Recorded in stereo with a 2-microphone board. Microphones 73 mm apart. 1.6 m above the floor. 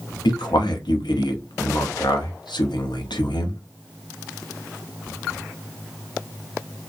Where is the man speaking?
85° left, 0.6 m.